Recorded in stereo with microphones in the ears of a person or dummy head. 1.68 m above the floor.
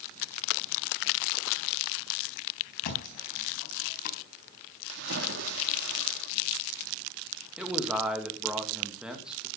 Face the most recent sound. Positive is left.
turn(degrees=-5)  # may be behind; listen again after turning